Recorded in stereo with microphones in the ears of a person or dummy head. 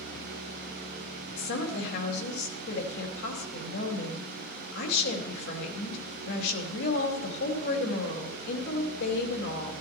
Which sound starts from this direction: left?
A woman speaking, at 1.4 s.